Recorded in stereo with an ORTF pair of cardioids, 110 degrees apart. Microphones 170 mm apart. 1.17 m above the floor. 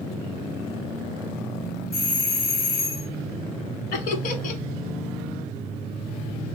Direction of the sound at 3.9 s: 55° left.